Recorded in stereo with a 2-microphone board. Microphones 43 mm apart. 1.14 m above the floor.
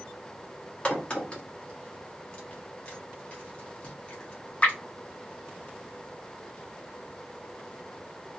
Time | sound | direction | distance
0.8 | a crack | 30° left (ahead or behind) | 1.4 m